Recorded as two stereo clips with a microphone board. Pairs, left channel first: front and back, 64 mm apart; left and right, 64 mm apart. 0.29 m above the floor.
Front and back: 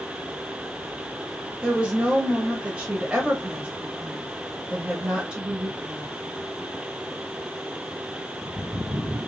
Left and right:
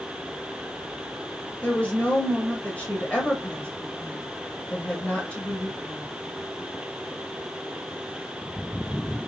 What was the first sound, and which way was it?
A woman speaking, 130° left.